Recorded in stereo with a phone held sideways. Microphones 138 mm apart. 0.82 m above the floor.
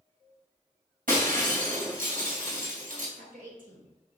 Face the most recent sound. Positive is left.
turn(degrees=-80)